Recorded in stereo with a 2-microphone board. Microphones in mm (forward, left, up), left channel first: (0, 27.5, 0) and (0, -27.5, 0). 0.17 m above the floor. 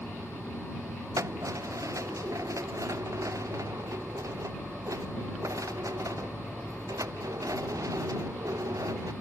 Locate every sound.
1.2 s keys jangling: 70° right (ahead or behind); by 9.1 s 85° right